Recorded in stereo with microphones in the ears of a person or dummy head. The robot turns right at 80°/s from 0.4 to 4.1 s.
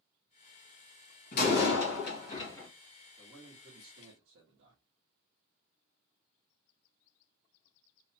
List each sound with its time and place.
1.3 s a door slam: 60° left, 1.8 m; by 2.7 s 170° left, 1.8 m
3.2 s a man speaking: 175° left, 1.5 m; by 4.8 s 110° right, 1.5 m